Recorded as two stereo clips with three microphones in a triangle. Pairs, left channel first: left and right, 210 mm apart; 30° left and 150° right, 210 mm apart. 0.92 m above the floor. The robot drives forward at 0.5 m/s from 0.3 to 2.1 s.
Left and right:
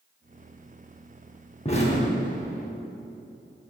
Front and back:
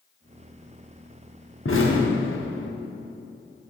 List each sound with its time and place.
1.6 s an explosion: 30° left, 1.0 m; by 2.7 s 40° left, 0.8 m